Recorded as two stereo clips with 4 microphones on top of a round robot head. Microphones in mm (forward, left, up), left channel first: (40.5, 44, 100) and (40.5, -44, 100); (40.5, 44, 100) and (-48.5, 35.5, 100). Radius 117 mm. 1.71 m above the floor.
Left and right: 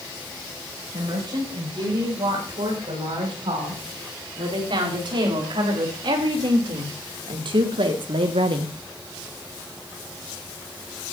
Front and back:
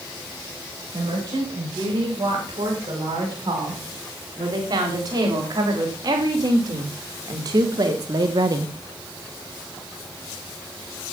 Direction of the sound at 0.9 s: 125° right.